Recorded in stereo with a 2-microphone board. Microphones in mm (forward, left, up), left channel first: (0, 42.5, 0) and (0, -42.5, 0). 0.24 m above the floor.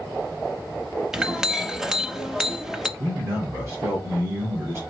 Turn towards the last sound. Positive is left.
turn(degrees=-35)  # may be behind; listen again after turning